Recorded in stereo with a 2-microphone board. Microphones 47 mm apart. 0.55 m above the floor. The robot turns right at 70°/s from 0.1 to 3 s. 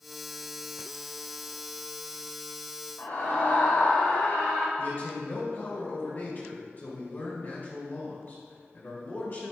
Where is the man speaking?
50° left (ahead or behind), 2 m.